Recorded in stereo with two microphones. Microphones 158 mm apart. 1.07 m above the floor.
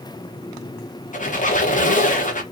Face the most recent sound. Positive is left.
turn(degrees=50)  # may be behind; listen again after turning